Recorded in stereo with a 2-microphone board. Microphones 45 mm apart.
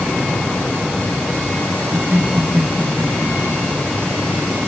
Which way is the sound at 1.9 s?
55° right (ahead or behind).